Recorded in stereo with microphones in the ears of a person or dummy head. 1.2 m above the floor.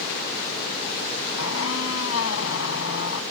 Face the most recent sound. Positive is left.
turn(degrees=80)